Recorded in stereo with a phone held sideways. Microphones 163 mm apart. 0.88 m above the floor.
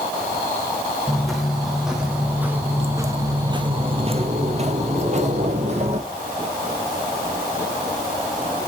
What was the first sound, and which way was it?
Footsteps, centre (ahead or behind).